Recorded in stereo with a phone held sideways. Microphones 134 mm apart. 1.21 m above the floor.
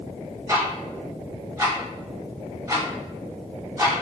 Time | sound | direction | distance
0.5 | ticking | 25° right (ahead or behind) | 0.7 m